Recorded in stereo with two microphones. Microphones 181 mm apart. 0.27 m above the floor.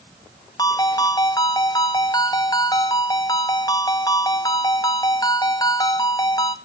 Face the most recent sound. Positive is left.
turn(degrees=20)  # may be behind; listen again after turning